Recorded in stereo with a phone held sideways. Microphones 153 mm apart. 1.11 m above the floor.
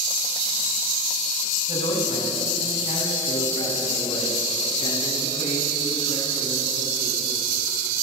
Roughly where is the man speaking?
Left.